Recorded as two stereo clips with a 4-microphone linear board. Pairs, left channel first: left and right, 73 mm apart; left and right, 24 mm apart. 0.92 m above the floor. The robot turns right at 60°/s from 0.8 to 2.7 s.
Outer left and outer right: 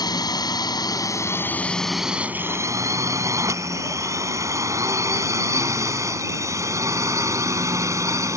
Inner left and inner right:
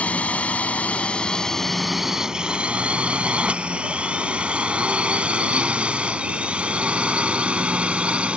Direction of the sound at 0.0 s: 65° left (ahead or behind).